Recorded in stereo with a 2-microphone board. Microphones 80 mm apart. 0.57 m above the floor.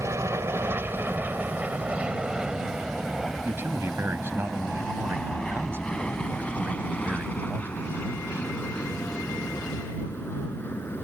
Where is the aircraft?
35° right (ahead or behind); by 11.1 s 25° left (ahead or behind).